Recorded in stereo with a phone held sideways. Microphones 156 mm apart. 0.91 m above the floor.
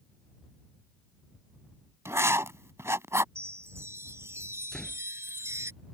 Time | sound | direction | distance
2.0 | writing | 15° right (ahead or behind) | ?
3.4 | a chime | 15° right (ahead or behind) | ?
4.7 | a door slam | 5° left (ahead or behind) | ?